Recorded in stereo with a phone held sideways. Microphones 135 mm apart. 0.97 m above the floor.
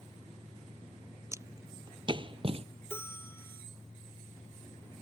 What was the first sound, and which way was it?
Footsteps, 20° right (ahead or behind).